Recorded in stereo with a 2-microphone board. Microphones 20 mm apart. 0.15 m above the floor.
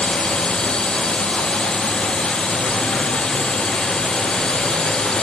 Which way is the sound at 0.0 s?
45° left (ahead or behind).